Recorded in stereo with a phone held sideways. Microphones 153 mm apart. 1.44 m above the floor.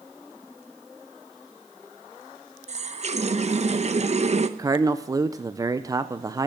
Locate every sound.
2.7 s a running tap: 45° right (ahead or behind), 0.7 m
4.6 s a man speaking: 25° right (ahead or behind), 0.5 m